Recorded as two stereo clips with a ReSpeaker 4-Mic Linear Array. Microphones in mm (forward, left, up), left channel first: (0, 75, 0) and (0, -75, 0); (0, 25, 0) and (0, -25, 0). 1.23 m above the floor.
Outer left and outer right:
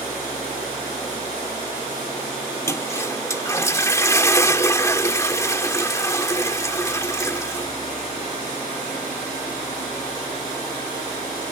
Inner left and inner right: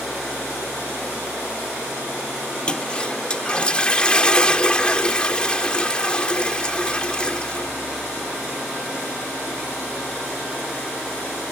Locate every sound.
2.7 s a toilet flushing: 20° left (ahead or behind)